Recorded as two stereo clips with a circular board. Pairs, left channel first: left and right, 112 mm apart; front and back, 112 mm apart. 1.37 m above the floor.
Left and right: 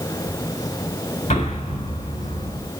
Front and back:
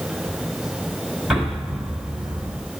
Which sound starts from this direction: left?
An explosion, at 1.3 s.